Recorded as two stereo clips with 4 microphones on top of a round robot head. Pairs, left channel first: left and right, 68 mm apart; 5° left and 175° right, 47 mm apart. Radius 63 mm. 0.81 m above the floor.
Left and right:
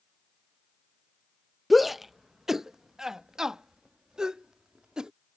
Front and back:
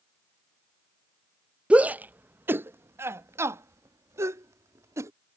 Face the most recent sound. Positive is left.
turn(degrees=-170)